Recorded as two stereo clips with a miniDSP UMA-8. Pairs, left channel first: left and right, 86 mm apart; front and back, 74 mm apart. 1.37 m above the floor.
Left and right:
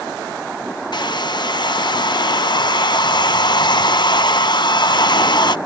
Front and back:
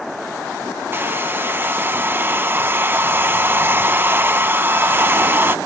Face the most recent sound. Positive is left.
turn(degrees=120)